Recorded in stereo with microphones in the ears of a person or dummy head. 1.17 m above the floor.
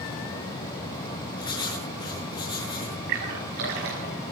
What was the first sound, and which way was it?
Writing, 20° left (ahead or behind).